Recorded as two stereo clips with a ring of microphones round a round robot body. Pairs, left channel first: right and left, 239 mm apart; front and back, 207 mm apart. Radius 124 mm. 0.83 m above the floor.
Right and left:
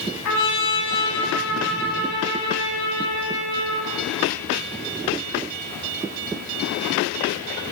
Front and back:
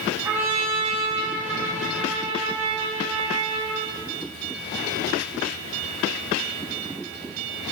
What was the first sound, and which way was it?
A trumpet, 100° right.